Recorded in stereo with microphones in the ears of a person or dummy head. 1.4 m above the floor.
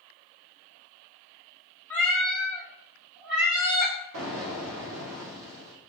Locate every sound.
1.9 s a cat meowing: 10° left (ahead or behind), 1.6 m; by 3.9 s 25° right (ahead or behind), 1.1 m
4.1 s an explosion: 80° right, 0.9 m